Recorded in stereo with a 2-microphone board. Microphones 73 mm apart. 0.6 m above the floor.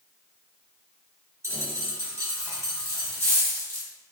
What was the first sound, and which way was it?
A dropped coin, 40° right (ahead or behind).